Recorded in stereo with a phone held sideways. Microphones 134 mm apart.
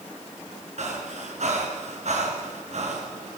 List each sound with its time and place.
0.8 s breathing: 60° right (ahead or behind), 2.5 m